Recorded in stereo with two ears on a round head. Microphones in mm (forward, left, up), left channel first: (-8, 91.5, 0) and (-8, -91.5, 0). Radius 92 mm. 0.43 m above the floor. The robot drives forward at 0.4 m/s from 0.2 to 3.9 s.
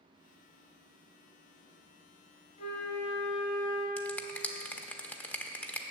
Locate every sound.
2.6 s a flute: 40° left (ahead or behind), 3.5 m; by 3.9 s 45° left (ahead or behind), 3 m
4.0 s a finger snap: 10° left (ahead or behind), 0.6 m